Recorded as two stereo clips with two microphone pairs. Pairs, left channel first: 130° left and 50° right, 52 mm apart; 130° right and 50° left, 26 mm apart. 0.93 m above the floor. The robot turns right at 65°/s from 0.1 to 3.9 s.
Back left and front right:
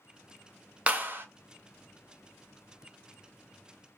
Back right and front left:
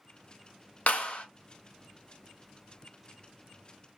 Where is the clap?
110° right, 0.8 m; by 1.2 s 85° right, 0.8 m.